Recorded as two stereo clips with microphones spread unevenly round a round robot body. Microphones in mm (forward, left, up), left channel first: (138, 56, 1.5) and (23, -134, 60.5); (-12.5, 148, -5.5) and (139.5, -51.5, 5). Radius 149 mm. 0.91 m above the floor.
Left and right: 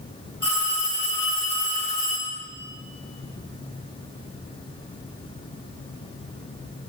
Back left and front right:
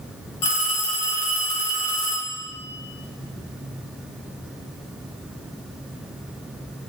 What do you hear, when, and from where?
0.4 s a phone ringing: 105° left, 4 m